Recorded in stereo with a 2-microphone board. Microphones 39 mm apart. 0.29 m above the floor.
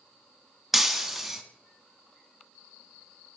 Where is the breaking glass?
5° right (ahead or behind), 0.6 m.